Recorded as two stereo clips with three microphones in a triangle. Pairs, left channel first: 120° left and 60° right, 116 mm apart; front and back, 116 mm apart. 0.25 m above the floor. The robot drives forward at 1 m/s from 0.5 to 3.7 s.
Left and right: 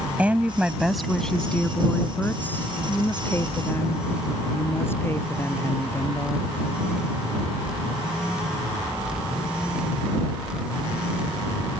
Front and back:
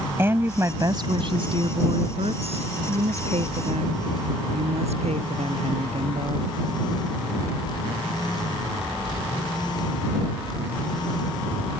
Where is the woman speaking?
130° right; by 6.5 s 170° right.